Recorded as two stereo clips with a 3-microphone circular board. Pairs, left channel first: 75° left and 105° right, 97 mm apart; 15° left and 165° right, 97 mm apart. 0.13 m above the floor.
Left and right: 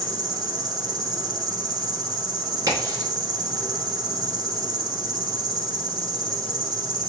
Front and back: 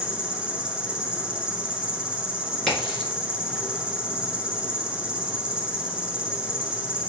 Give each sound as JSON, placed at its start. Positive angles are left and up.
{"t": 0.0, "sound": "an insect", "azimuth_deg": -90, "distance_m": 0.7}
{"t": 2.7, "sound": "a crack", "azimuth_deg": -75, "distance_m": 2.0}